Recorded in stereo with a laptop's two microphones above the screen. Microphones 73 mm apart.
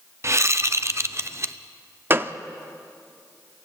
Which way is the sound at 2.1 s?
35° right (ahead or behind).